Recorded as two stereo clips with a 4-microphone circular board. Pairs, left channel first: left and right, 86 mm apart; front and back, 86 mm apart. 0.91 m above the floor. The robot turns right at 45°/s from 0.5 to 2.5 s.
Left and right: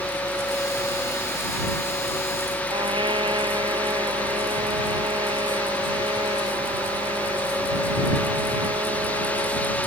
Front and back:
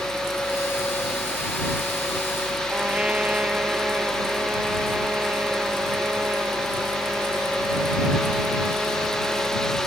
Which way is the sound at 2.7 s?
105° right.